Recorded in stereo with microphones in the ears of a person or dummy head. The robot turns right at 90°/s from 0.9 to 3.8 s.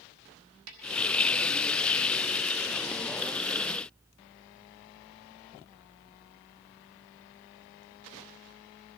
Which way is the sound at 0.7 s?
80° right.